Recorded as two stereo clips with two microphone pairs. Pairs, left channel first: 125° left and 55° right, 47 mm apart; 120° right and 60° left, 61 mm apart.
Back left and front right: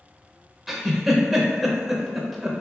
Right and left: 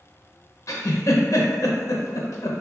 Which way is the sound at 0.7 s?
140° right.